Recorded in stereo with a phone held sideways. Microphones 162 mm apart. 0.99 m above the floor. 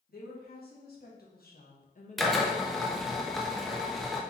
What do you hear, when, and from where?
0.1 s a woman speaking: 70° left (ahead or behind), 1.6 m; by 3.2 s 5° left (ahead or behind), 0.9 m
2.2 s a drill: centre (ahead or behind), 0.6 m